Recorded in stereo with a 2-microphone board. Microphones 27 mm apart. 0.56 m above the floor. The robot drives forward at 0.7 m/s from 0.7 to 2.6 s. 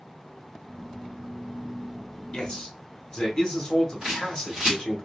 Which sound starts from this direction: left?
A man speaking, at 2.3 s.